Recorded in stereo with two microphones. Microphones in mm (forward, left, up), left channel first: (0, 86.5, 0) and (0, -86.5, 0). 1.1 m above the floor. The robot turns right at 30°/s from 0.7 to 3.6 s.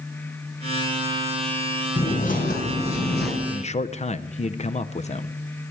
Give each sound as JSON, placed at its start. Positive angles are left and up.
{"t": 2.0, "sound": "a bird", "azimuth_deg": 40, "distance_m": 3.0}
{"t": 3.5, "sound": "a man speaking", "side_deg": 40, "distance_m": 0.5}